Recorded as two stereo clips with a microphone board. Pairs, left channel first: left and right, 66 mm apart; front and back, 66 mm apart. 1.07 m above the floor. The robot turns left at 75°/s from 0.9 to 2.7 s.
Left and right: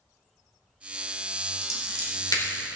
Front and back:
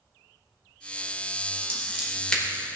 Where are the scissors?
130° left, 3 m; by 2.4 s 70° left, 3 m.